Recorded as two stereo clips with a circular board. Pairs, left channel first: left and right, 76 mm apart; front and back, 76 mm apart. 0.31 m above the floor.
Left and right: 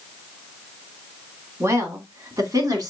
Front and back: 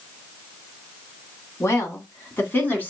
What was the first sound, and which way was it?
A woman speaking, 45° right.